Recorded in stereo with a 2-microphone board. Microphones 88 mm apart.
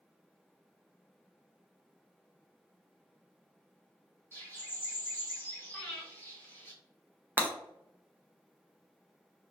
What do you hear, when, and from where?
4.3 s a bird: 25° left (ahead or behind), 0.9 m
5.7 s breathing: 10° left (ahead or behind), 0.8 m
7.4 s breaking glass: 20° right (ahead or behind), 0.5 m